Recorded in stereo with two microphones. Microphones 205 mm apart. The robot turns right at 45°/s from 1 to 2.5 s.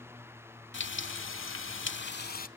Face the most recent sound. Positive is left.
turn(degrees=135)